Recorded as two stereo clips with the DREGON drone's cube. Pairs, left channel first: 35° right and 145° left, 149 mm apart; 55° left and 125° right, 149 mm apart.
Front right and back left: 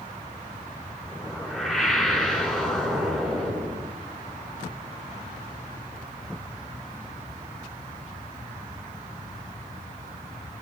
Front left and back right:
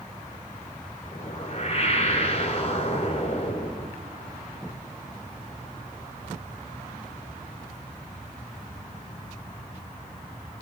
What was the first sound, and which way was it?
A whoosh, 50° left.